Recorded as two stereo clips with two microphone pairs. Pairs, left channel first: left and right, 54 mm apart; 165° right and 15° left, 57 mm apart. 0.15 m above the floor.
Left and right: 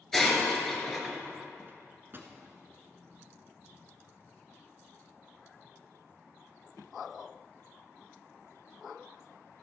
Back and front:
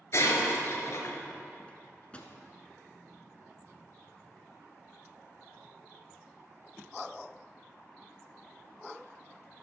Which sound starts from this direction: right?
A microwave, at 1.7 s.